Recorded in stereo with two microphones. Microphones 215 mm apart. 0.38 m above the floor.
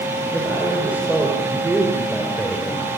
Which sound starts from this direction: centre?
A man speaking, at 0.3 s.